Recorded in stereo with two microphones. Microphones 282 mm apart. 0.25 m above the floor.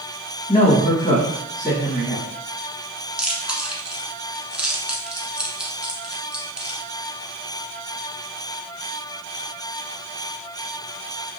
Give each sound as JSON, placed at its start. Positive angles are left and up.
{"t": 0.5, "sound": "a woman speaking", "side_deg": 15, "distance_m": 1.5}
{"t": 3.2, "sound": "chewing", "side_deg": -5, "distance_m": 0.7}